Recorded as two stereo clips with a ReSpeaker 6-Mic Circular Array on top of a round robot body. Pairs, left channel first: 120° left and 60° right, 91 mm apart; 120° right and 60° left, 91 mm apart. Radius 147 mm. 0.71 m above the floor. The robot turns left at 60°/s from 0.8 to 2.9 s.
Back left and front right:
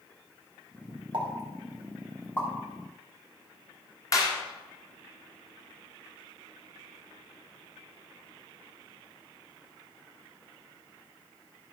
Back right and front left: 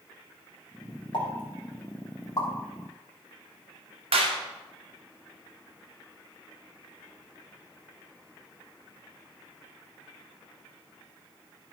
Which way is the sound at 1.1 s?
95° right.